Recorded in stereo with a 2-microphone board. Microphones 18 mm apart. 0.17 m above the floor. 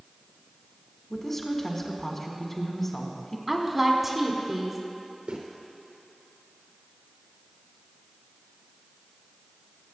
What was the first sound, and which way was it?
A woman speaking, 20° left (ahead or behind).